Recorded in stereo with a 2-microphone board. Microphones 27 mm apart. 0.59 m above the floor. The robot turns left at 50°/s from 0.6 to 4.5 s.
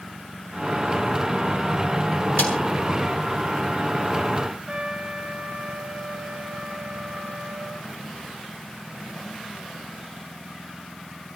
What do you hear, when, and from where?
2.4 s a snare drum: 70° left (ahead or behind), 7 m; by 2.6 s 65° left (ahead or behind), 7 m
4.7 s a trumpet: 55° right (ahead or behind), 3 m